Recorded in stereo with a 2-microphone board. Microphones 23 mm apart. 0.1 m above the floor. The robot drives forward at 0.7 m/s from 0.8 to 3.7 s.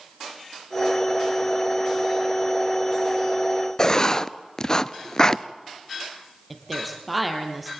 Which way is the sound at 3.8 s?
30° left (ahead or behind).